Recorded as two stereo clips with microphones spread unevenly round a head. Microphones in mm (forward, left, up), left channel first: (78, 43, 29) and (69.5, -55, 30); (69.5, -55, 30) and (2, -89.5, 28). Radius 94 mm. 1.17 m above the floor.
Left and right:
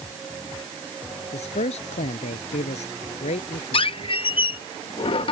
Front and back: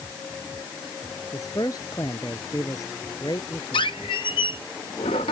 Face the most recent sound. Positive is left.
turn(degrees=65)